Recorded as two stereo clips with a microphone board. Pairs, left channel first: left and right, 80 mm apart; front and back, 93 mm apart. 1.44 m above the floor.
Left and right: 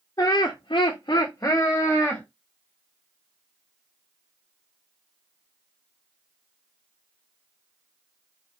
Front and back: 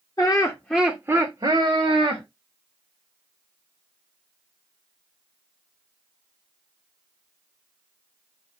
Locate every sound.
0.2 s laughter: 45° left, 0.8 m; by 2.2 s 165° left, 1.2 m